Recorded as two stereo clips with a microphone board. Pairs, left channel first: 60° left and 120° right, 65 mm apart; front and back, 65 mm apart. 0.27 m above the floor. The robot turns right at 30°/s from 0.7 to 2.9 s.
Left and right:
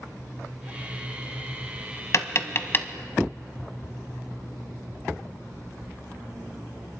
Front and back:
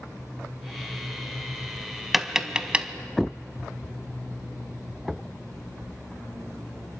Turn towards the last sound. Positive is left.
turn(degrees=115)